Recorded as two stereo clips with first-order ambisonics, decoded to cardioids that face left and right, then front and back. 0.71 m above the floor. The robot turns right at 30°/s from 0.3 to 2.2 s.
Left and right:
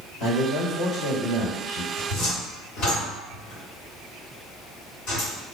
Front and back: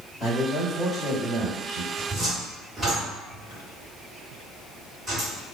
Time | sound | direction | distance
0.2 | a man speaking | 55° left | 1.8 m
2.0 | a cupboard door | 90° left | 1.7 m